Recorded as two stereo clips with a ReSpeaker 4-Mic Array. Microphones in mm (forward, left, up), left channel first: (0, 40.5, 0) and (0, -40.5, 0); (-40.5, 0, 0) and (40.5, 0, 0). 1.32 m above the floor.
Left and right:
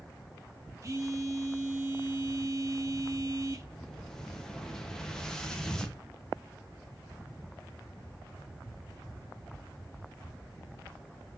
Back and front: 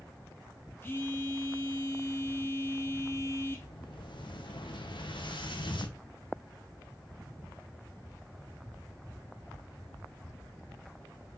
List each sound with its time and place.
0.8 s a phone buzzing: 125° right, 0.6 m
3.6 s an explosion: 175° left, 0.6 m